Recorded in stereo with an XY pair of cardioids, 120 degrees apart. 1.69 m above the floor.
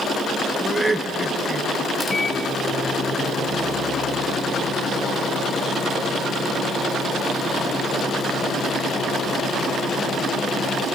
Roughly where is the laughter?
Ahead.